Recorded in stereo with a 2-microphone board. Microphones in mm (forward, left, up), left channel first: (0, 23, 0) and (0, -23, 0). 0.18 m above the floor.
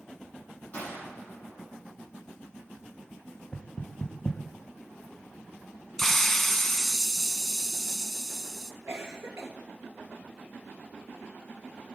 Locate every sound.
0.7 s a gunshot: 35° left (ahead or behind), 7 m
3.5 s knocking: 20° left (ahead or behind), 0.9 m
6.0 s a hiss: 10° left (ahead or behind), 0.6 m
8.9 s a cough: 65° right (ahead or behind), 3 m